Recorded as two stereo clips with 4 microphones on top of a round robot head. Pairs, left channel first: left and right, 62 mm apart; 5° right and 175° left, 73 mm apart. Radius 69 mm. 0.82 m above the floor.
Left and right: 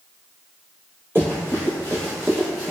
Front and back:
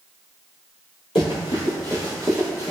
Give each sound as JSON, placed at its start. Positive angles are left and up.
{"t": 1.1, "sound": "running footsteps", "azimuth_deg": -20, "distance_m": 1.0}